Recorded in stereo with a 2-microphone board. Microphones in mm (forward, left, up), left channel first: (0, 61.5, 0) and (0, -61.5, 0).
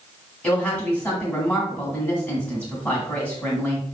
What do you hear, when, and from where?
0.4 s a woman speaking: 10° left (ahead or behind), 1.6 m